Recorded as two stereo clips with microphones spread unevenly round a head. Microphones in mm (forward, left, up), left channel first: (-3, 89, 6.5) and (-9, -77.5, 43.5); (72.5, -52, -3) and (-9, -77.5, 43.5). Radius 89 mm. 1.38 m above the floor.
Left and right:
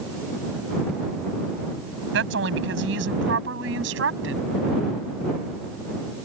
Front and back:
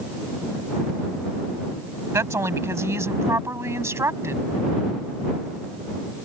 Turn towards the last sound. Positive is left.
turn(degrees=-110)